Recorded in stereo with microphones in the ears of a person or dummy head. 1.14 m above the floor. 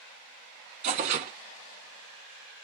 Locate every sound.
0.8 s tearing paper: 35° right (ahead or behind), 1.0 m